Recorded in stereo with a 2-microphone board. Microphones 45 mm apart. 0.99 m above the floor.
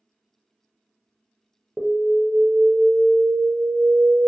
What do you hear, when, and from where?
1.8 s an alarm: 15° right (ahead or behind), 0.6 m